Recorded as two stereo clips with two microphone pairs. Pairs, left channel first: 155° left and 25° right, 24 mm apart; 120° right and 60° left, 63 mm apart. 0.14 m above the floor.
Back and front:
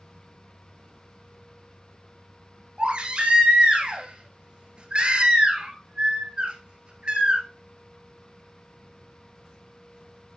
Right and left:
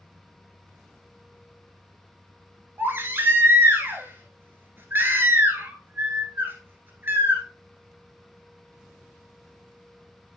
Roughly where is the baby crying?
Ahead.